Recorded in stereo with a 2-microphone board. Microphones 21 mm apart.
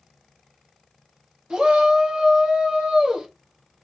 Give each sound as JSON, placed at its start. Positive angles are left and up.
{"t": 1.5, "sound": "a shout", "side_deg": -45, "distance_m": 1.7}